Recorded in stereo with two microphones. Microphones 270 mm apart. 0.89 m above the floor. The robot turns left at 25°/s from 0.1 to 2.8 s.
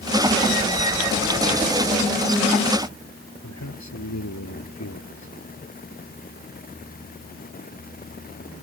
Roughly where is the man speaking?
Left.